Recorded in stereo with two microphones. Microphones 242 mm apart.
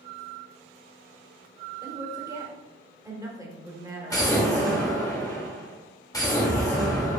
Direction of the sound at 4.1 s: 15° left (ahead or behind).